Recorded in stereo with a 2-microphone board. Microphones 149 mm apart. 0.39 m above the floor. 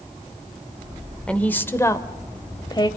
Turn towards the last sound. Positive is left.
turn(degrees=30)  # may be behind; listen again after turning